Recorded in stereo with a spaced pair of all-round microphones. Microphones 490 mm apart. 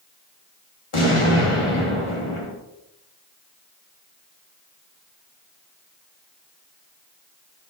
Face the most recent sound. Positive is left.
turn(degrees=85)